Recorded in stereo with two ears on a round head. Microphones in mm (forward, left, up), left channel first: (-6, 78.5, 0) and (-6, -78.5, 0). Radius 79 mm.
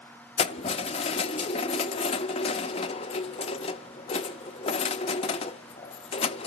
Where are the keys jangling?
35° left (ahead or behind), 0.6 m.